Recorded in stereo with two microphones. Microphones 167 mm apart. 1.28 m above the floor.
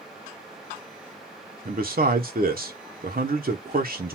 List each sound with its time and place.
1.6 s a man speaking: 60° right (ahead or behind), 1.0 m